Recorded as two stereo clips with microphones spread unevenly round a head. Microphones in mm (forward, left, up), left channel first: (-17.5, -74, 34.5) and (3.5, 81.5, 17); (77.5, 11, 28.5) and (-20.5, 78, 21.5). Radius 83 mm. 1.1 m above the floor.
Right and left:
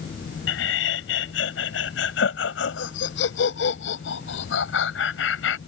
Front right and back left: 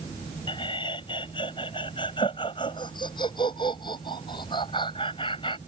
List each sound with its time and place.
0.5 s laughter: 100° right